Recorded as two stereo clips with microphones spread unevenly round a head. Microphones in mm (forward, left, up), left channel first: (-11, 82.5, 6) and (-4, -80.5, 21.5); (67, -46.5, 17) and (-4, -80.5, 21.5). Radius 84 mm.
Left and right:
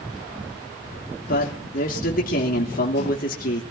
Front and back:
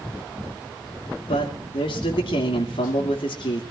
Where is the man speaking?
55° left, 3.5 m.